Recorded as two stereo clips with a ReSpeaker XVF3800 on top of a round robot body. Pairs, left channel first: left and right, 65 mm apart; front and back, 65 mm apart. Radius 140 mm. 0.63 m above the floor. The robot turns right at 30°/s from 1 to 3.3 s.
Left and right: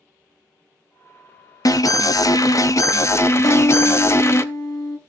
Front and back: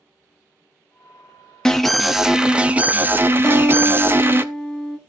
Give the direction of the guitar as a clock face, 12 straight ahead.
9 o'clock.